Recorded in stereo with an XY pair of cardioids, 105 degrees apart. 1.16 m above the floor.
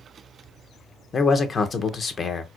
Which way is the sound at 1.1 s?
40° left.